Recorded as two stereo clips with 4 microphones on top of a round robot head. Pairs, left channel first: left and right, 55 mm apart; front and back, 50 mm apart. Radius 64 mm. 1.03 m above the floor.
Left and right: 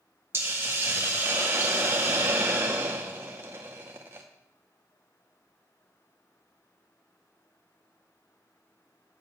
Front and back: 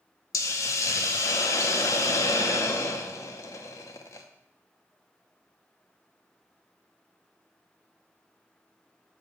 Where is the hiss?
35° right, 0.7 m.